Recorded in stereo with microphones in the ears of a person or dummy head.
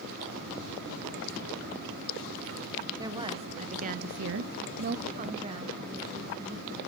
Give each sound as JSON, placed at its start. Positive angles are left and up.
{"t": 3.0, "sound": "a woman speaking", "side_deg": -20, "distance_m": 1.3}